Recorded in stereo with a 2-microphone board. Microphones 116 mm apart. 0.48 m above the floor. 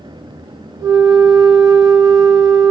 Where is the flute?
40° right (ahead or behind), 0.9 m.